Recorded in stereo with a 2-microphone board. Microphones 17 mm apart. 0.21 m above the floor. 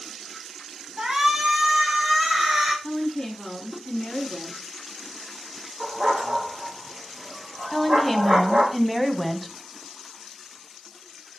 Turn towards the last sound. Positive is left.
turn(degrees=5)  # may be behind; listen again after turning